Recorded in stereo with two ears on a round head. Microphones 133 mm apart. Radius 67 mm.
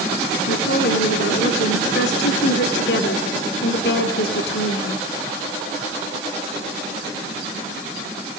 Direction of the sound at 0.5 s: 80° left.